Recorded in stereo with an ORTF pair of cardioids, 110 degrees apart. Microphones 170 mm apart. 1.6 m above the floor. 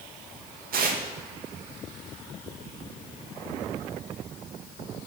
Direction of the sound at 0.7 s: 60° right.